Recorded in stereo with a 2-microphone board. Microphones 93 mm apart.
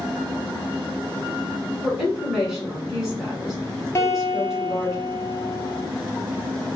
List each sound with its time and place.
1.8 s a woman speaking: 5° right (ahead or behind), 1.5 m
4.0 s a guitar: 35° left (ahead or behind), 0.6 m